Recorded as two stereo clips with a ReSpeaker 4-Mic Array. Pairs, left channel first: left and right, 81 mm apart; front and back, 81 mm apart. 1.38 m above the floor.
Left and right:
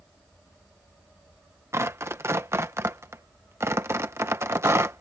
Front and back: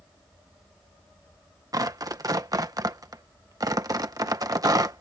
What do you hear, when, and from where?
1.7 s tearing paper: 145° right